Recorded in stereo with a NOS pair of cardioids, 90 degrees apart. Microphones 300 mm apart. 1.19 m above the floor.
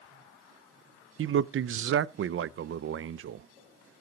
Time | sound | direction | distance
1.2 | a man speaking | 45° right | 0.6 m